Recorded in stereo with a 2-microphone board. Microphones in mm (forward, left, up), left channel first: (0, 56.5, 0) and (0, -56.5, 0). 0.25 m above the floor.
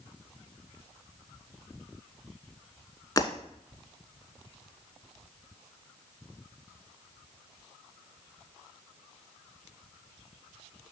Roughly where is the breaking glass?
Left.